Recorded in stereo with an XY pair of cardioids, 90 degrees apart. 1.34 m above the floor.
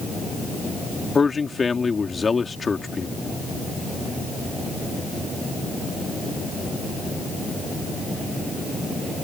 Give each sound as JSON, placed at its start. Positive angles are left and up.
{"t": 1.1, "sound": "a man speaking", "azimuth_deg": 30}